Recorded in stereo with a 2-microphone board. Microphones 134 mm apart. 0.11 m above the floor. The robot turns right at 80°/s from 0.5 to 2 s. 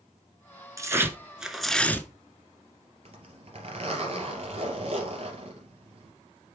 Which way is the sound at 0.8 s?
25° right (ahead or behind).